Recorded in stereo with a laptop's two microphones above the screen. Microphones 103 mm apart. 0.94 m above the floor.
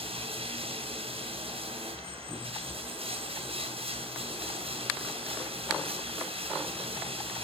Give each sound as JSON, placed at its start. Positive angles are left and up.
{"t": 0.0, "sound": "running water", "side_deg": -70, "distance_m": 2.5}